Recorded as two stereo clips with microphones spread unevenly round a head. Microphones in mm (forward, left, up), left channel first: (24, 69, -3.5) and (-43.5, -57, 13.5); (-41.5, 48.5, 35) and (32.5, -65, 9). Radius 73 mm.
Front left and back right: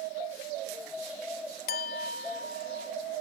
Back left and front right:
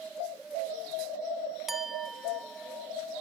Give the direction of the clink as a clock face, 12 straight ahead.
11 o'clock.